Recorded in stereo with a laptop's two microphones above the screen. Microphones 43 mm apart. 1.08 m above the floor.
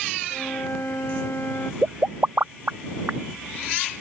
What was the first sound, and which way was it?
A flute, 70° left (ahead or behind).